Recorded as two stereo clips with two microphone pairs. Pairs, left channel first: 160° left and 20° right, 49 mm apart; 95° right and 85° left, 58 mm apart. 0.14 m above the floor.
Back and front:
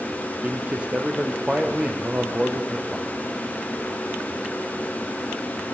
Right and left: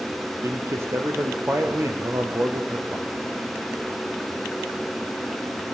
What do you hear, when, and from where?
0.4 s a man speaking: 40° left, 3.5 m